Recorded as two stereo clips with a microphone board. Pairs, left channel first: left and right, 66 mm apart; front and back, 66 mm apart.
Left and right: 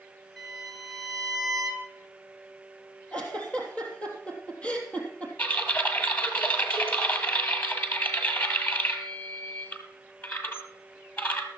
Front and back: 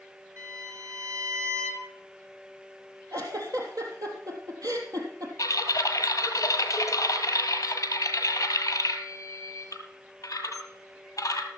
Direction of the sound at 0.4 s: Straight behind.